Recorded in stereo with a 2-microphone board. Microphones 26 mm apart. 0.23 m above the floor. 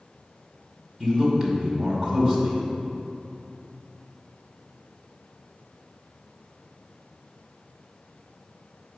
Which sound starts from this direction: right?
A man speaking, at 1.0 s.